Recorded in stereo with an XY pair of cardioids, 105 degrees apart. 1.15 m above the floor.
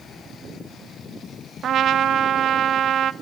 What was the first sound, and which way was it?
A trumpet, 60° right.